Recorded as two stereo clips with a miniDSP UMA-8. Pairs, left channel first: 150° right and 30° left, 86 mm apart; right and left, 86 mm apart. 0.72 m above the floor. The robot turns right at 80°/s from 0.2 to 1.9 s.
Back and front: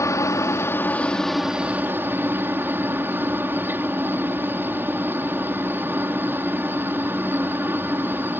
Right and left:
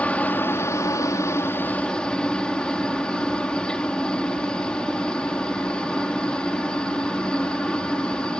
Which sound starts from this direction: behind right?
A helicopter, at 0.0 s.